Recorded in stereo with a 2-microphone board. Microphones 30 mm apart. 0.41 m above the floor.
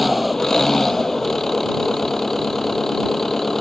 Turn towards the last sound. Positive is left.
turn(degrees=15)  # may be behind; listen again after turning